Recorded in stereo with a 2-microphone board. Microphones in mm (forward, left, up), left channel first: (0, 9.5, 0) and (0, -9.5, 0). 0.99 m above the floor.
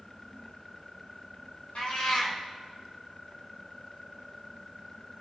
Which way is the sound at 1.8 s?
75° left (ahead or behind).